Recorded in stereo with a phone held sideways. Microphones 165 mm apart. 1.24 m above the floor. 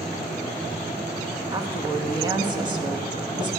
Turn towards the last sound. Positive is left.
turn(degrees=-25)  # may be behind; listen again after turning